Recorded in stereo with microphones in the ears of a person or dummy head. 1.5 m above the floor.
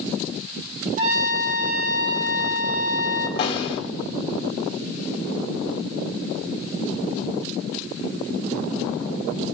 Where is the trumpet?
45° right (ahead or behind), 2 m.